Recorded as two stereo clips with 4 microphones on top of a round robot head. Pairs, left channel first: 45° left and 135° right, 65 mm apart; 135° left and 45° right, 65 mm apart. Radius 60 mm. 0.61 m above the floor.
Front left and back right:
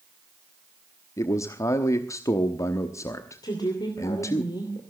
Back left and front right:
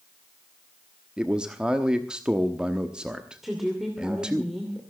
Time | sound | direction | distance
1.2 | a man speaking | 25° left | 1.1 m
3.4 | a woman speaking | 40° left | 2.5 m